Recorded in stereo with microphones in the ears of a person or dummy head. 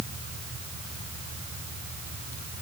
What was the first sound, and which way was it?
Only background noise.